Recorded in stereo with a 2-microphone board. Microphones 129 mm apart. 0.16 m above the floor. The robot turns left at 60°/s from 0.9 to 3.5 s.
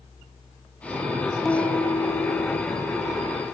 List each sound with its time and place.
1.4 s a piano: centre (ahead or behind), 0.8 m; by 3.3 s 25° left (ahead or behind), 0.8 m